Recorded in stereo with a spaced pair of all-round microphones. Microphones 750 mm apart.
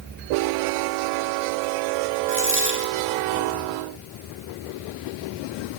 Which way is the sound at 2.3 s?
15° right (ahead or behind).